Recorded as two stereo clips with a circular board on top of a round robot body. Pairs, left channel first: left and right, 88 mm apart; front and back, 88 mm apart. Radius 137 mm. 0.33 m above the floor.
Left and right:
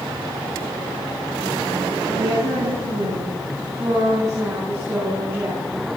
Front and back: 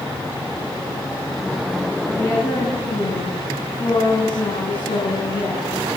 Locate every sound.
2.1 s a woman speaking: 65° right, 4.5 m; by 6.0 s 20° right, 5.5 m